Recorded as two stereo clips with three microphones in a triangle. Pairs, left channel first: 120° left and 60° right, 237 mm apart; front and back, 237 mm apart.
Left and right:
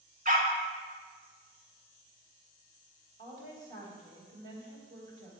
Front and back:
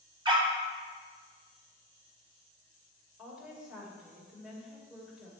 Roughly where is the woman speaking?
Right.